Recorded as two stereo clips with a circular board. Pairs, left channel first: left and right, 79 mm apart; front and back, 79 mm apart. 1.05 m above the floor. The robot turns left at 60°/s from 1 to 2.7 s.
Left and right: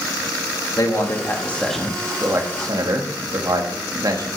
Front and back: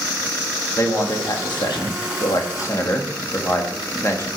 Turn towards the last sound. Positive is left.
turn(degrees=-55)